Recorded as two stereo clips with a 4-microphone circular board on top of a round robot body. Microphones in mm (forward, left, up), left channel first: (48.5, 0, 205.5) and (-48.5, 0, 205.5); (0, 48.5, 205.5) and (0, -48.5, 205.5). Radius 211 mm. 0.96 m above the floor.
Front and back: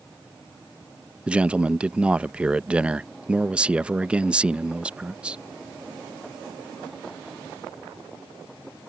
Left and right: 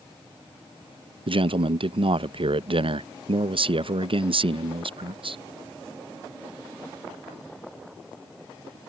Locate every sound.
1.3 s a man speaking: 105° right